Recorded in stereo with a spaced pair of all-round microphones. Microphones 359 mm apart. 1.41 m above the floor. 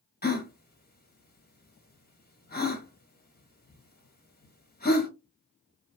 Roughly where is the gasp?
Left.